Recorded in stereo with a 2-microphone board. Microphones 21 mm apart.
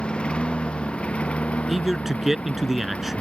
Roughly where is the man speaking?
Centre.